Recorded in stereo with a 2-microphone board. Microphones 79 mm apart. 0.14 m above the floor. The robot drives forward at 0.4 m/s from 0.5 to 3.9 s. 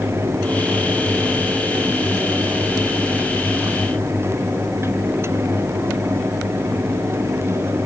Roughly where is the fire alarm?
No fire alarm in this recording.